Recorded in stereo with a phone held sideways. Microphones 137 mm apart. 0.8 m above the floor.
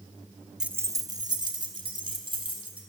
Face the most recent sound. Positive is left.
turn(degrees=-40)  # may be behind; listen again after turning